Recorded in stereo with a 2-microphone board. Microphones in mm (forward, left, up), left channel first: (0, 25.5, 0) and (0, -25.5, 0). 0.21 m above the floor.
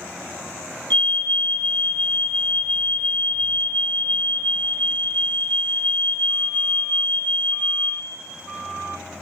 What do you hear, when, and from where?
0.9 s a fire alarm: 35° left (ahead or behind), 2.5 m